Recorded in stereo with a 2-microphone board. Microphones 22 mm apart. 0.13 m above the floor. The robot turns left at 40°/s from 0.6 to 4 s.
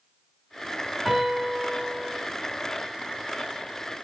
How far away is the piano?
About 1.4 m.